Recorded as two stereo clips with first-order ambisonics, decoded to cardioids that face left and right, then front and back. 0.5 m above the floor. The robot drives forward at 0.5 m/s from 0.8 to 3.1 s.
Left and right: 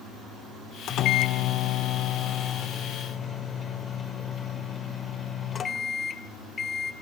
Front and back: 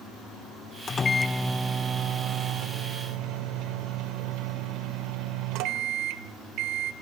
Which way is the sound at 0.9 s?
60° left.